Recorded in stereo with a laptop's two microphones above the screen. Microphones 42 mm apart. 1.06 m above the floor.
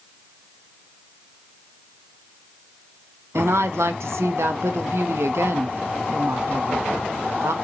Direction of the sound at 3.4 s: 80° right.